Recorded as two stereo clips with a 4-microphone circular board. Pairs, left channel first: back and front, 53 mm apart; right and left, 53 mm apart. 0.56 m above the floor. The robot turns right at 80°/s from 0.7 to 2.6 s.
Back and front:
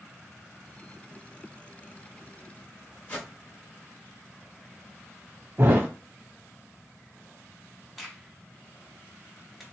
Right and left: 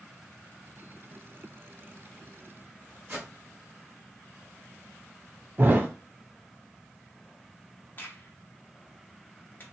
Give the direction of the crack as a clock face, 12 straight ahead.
3 o'clock.